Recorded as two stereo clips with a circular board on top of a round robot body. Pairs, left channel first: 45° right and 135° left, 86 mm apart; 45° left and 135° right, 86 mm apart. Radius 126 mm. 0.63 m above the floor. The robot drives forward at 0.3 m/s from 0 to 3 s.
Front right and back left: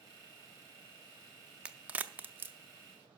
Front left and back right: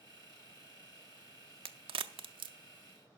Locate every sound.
1.6 s a crack: 150° right, 0.6 m; by 2.5 s 155° right, 0.9 m